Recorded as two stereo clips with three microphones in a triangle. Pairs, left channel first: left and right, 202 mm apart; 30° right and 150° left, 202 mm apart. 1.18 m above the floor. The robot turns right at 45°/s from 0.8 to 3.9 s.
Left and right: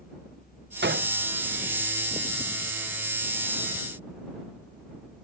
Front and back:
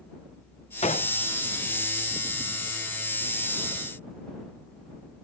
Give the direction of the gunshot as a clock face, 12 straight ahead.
3 o'clock.